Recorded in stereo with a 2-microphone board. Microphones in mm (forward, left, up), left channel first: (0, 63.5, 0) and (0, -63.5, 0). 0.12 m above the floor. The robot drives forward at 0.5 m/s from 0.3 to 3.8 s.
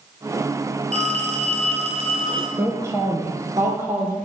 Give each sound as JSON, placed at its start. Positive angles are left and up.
{"t": 0.9, "sound": "a phone ringing", "side_deg": -60, "distance_m": 1.5}
{"t": 2.6, "sound": "a woman speaking", "side_deg": -20, "distance_m": 2.5}